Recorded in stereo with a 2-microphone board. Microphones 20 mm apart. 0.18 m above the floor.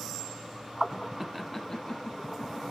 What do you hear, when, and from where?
1.2 s laughter: 15° right (ahead or behind), 1.0 m; by 2.6 s 55° left (ahead or behind), 1.9 m